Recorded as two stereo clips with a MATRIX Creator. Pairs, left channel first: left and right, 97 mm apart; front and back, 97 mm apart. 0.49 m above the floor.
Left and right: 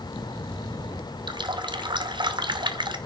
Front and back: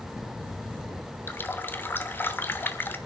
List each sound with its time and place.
1.3 s a running tap: 65° right, 0.8 m